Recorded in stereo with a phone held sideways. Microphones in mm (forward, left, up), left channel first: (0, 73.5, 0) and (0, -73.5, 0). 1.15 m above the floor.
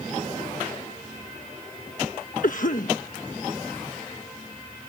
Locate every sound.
2.4 s a cough: 65° left (ahead or behind)